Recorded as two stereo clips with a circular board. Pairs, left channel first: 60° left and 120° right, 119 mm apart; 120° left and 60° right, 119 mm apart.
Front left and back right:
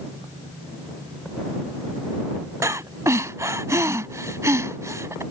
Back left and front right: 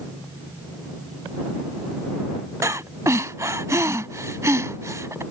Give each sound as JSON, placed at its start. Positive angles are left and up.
{"t": 2.6, "sound": "breathing", "azimuth_deg": -90}